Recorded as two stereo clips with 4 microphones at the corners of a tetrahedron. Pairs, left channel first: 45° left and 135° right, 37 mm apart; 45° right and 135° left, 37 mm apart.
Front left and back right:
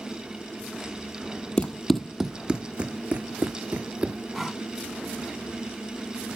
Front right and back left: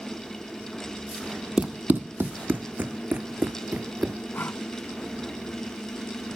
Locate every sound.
1.6 s running footsteps: 95° left; by 4.2 s straight behind
4.3 s breathing: 45° right